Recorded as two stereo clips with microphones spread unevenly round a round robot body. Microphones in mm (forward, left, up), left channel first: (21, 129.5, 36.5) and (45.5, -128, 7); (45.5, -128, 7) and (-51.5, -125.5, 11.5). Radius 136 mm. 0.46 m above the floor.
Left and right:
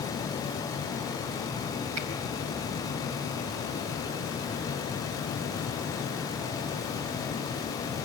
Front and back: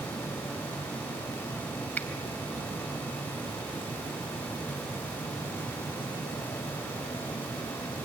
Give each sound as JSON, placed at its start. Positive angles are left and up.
{"t": 2.0, "sound": "a finger snap", "azimuth_deg": -75, "distance_m": 2.5}